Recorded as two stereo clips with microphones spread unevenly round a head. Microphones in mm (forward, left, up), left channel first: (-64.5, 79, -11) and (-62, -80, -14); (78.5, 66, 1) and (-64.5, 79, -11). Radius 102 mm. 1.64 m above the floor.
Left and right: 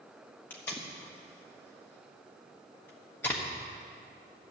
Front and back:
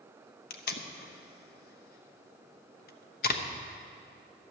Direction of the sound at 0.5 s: 10° left.